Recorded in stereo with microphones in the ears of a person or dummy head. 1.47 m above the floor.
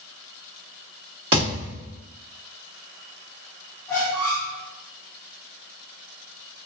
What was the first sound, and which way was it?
A thud, 25° right (ahead or behind).